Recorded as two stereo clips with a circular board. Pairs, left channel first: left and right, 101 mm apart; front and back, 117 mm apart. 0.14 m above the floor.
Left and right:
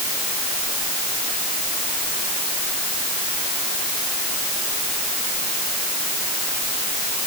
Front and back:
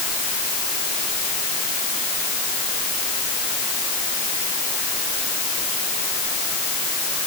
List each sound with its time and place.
Only background noise.